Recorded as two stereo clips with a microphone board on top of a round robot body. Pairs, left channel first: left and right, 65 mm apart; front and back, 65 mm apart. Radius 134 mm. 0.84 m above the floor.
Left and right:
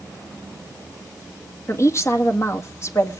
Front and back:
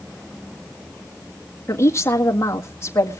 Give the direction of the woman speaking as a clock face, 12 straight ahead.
10 o'clock.